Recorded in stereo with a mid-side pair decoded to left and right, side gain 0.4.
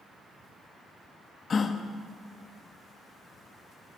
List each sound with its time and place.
1.5 s a gasp: 50° left, 0.6 m